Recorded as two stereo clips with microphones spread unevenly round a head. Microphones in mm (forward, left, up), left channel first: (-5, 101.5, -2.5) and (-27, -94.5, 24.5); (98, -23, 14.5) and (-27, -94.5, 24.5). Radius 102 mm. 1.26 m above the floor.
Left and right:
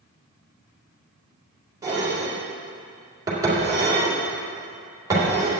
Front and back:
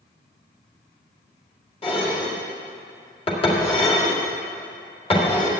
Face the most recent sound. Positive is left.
turn(degrees=-20)